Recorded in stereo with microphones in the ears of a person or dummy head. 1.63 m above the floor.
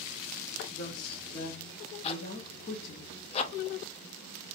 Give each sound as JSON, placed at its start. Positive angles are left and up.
{"t": 0.7, "sound": "a woman speaking", "side_deg": 55, "distance_m": 1.0}
{"t": 2.0, "sound": "a zipper", "side_deg": 35, "distance_m": 0.5}